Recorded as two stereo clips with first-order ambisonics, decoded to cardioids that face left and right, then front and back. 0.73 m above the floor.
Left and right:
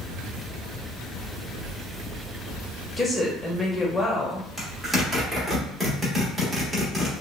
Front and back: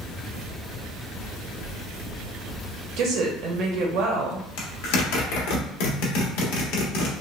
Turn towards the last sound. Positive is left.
turn(degrees=0)